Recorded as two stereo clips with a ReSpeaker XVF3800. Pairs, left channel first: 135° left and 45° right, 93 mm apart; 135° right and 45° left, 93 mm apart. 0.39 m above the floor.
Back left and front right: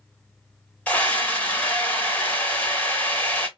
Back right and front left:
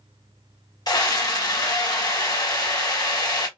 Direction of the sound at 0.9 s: 155° right.